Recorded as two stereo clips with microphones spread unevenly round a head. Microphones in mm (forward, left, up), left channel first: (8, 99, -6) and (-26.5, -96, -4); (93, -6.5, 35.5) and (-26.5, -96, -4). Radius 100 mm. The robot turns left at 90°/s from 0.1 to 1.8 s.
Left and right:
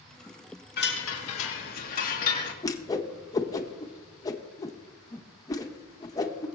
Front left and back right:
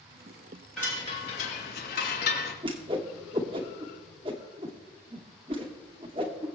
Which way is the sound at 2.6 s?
150° left.